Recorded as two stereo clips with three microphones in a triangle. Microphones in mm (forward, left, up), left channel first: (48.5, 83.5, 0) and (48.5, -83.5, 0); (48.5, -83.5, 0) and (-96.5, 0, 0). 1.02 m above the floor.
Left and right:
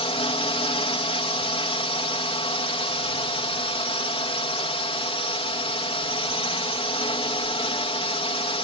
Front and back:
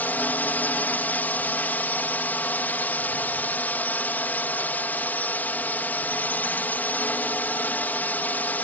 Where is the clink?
I don't hear a clink.